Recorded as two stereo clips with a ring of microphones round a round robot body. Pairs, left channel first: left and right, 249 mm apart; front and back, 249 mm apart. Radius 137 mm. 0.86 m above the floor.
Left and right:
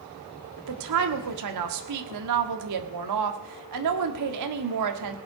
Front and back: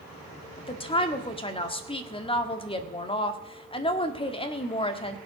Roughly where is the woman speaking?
Right.